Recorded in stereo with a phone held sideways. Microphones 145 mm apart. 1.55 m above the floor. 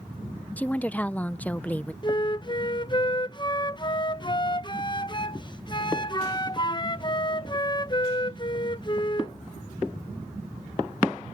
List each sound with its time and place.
0.6 s a woman speaking: 10° left (ahead or behind)
2.0 s a flute: 30° left (ahead or behind)